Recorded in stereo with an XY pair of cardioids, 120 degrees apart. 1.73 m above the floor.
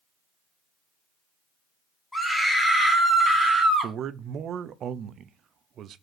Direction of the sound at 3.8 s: 55° right.